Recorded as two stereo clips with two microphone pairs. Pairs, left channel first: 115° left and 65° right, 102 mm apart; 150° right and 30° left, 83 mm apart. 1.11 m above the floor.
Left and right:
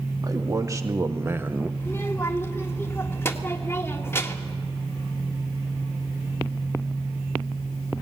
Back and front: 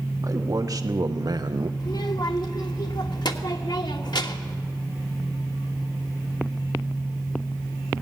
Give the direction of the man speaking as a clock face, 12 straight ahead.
12 o'clock.